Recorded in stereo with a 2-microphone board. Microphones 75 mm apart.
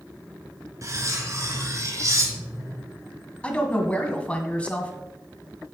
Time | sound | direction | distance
0.8 | cutlery clinking | 40° right (ahead or behind) | 2.0 m
3.4 | a woman speaking | 15° left (ahead or behind) | 1.7 m